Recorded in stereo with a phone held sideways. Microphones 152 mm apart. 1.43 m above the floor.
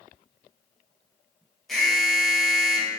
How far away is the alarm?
About 1.3 m.